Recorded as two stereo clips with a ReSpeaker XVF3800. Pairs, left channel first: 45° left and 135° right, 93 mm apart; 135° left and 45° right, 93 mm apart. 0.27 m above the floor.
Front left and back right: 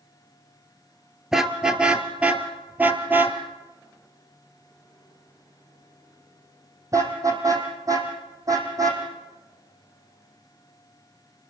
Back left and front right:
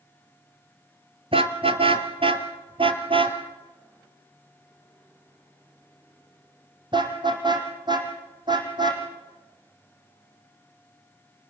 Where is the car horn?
50° right, 2 m; by 9.0 s 85° right, 5.5 m.